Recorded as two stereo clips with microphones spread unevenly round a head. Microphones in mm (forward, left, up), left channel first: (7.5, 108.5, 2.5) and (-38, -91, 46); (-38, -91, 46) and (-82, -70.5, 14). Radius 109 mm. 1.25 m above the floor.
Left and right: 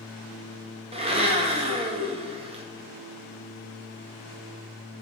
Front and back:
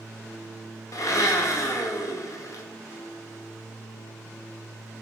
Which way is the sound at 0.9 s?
35° right.